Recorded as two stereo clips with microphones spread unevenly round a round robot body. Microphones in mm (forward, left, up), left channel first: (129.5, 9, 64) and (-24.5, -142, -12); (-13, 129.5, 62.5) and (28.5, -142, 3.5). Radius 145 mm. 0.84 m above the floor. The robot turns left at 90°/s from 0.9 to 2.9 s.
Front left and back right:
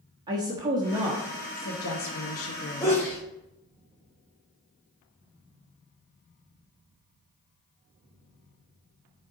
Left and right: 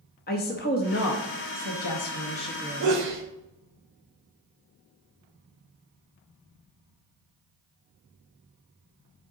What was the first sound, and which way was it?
A woman speaking, 160° left.